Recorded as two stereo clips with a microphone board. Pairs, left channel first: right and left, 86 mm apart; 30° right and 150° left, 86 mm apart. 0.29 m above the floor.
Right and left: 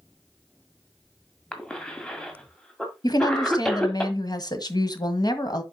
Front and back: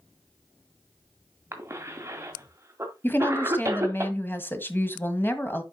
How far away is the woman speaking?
About 1.6 m.